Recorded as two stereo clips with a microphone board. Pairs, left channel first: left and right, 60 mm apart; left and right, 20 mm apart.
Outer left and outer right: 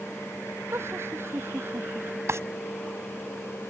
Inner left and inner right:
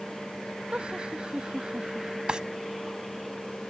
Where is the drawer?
50° right (ahead or behind).